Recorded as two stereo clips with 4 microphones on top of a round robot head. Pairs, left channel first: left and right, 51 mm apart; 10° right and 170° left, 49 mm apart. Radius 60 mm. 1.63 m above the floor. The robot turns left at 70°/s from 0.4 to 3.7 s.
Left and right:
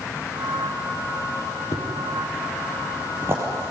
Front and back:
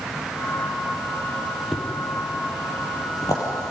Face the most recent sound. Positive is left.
turn(degrees=-65)